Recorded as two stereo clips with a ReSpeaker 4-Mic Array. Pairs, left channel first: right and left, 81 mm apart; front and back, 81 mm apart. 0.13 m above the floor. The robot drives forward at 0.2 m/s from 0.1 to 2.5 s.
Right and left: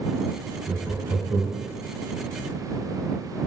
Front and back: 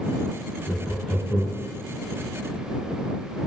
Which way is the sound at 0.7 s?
90° left.